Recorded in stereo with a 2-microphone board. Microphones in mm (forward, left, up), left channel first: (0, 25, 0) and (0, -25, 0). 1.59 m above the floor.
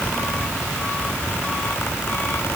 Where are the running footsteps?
No running footsteps in this recording.